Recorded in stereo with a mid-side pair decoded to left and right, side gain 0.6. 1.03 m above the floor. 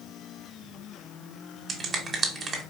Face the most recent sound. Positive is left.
turn(degrees=-30)